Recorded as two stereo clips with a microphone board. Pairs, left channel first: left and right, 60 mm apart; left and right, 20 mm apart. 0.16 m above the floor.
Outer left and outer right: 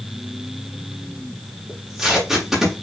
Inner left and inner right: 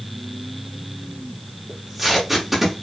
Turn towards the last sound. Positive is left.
turn(degrees=-5)  # may be behind; listen again after turning